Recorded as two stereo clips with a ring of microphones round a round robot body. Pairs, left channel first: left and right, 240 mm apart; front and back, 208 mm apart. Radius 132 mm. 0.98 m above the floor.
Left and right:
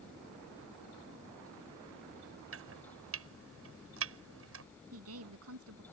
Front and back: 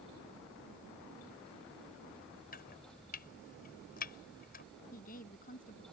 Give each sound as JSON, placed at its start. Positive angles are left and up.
{"t": 2.5, "sound": "chopping", "azimuth_deg": -55}
{"t": 4.9, "sound": "a woman speaking", "azimuth_deg": -60}